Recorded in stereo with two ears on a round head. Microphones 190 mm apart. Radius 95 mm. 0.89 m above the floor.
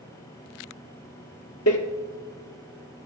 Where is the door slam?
80° left, 1.3 m.